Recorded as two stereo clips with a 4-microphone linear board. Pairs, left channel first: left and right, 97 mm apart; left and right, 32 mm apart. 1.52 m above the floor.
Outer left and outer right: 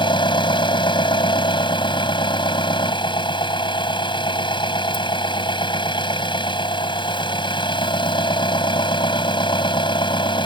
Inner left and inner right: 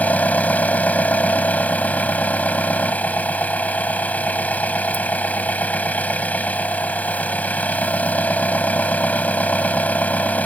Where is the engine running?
55° left (ahead or behind).